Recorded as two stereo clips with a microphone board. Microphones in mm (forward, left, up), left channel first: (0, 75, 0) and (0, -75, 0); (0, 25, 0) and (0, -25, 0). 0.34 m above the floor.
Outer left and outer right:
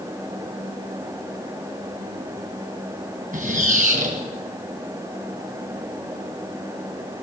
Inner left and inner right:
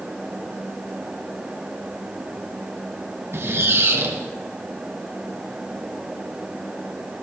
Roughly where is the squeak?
Right.